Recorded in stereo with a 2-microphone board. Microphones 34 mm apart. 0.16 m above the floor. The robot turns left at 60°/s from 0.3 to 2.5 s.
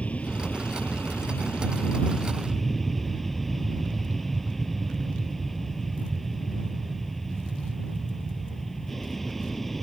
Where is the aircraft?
140° left; by 9.8 s 10° left.